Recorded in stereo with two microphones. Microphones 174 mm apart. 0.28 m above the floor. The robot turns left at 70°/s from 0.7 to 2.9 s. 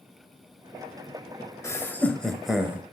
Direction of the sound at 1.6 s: 15° left (ahead or behind).